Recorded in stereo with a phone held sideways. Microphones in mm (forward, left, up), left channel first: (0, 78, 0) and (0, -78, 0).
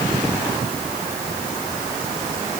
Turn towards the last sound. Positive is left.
No sound to turn to.